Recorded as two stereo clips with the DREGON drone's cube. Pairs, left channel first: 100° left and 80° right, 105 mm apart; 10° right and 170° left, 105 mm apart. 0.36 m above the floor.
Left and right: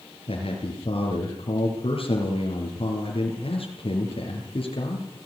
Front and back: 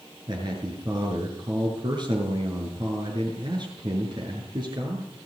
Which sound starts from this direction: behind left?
A man speaking, at 0.3 s.